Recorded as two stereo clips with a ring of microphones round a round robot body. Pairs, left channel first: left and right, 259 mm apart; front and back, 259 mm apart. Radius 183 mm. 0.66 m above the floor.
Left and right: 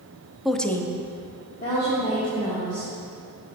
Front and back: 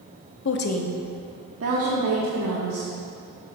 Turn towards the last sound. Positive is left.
turn(degrees=165)